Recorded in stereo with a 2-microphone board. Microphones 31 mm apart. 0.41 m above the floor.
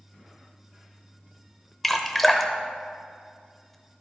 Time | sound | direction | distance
1.8 | dripping | centre (ahead or behind) | 0.6 m